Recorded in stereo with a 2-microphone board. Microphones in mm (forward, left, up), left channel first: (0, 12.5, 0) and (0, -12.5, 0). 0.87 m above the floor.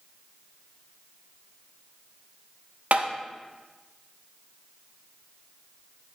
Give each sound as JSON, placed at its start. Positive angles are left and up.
{"t": 2.9, "sound": "tapping", "side_deg": -75, "distance_m": 0.6}